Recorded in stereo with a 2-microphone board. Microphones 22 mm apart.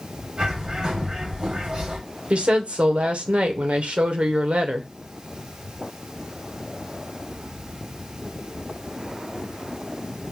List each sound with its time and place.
0.4 s a bird: 40° right (ahead or behind), 2.5 m
2.3 s a woman speaking: 65° right (ahead or behind), 0.8 m